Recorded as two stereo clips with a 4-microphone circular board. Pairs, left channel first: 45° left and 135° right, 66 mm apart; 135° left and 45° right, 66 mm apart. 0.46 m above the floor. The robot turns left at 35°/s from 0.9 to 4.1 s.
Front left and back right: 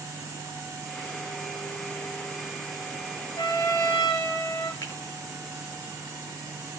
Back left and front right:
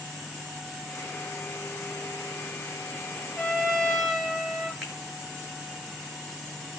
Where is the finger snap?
35° left, 7.5 m.